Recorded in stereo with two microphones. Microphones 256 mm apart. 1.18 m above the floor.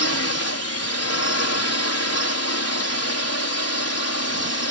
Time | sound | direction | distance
0.0 | a drone | 70° left (ahead or behind) | ?